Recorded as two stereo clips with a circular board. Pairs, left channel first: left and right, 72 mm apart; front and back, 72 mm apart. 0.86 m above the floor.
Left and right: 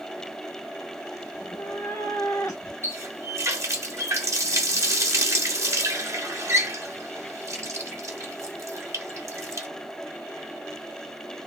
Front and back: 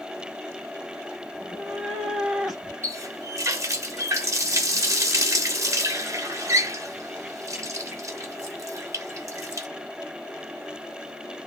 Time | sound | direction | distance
1.3 | a cat meowing | 95° left | 1.3 m
2.8 | a running tap | 135° right | 0.8 m